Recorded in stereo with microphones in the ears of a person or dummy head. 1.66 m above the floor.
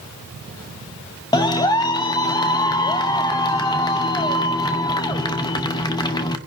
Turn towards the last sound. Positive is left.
turn(degrees=25)  # may be behind; listen again after turning